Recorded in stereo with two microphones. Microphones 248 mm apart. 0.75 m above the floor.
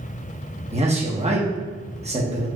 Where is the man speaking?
25° right (ahead or behind), 1.1 m.